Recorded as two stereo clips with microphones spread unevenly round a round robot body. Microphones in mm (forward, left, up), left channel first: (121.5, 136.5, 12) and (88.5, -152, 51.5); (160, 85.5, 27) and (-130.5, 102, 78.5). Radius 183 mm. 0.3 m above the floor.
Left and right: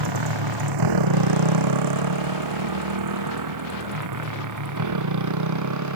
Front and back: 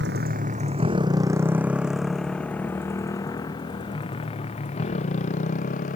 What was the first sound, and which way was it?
A motorcycle, 120° right.